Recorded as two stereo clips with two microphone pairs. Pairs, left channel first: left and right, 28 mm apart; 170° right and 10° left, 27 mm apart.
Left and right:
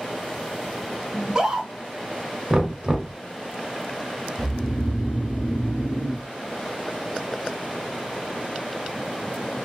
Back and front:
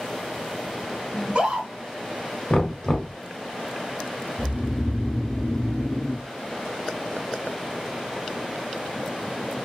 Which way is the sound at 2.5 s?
125° right.